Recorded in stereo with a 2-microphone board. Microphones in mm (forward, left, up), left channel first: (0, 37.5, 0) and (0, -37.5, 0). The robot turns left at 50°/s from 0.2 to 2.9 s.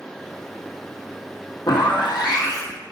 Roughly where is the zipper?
Left.